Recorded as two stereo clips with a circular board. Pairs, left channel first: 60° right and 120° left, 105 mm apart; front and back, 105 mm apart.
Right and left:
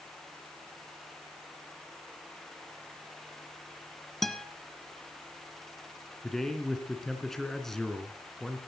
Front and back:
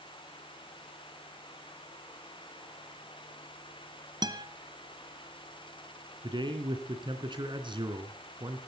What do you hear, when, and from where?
4.2 s a guitar: 145° right, 1.3 m
6.2 s a man speaking: 145° right, 3 m